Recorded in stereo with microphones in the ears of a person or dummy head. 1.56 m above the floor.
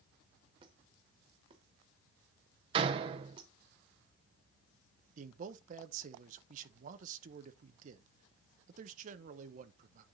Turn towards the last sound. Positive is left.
turn(degrees=-40)  # may be behind; listen again after turning